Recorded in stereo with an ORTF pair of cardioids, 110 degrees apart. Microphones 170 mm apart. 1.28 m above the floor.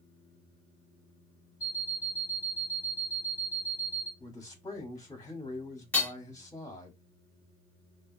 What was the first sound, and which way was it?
An alarm clock, 20° left.